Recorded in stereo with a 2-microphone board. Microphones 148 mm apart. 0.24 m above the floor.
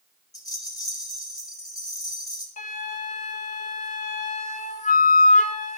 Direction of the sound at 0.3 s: 25° left (ahead or behind).